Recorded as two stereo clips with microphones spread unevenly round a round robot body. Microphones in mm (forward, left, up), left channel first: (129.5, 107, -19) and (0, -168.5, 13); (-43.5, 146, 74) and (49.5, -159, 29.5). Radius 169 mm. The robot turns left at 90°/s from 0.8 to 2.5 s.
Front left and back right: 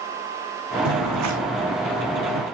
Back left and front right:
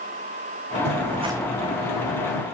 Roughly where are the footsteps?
Behind right.